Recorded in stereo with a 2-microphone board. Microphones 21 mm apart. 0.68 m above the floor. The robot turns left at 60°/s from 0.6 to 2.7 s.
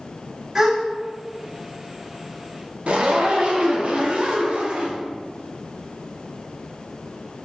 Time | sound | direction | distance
0.6 | a gasp | 20° right (ahead or behind) | 0.6 m
2.9 | a zipper | 60° right (ahead or behind) | 0.5 m